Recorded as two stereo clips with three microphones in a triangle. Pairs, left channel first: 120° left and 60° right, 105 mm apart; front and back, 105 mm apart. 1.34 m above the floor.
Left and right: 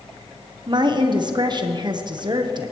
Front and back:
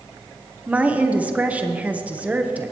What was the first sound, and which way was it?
A woman speaking, 105° right.